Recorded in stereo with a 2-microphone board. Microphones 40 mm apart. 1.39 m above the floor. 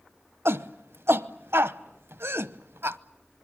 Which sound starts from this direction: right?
A shout, at 0.5 s.